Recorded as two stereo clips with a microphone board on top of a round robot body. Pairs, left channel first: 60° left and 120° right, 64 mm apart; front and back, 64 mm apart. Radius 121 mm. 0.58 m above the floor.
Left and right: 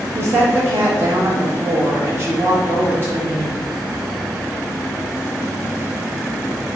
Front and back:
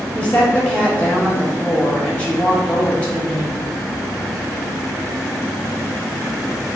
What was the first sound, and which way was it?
A woman speaking, 70° right.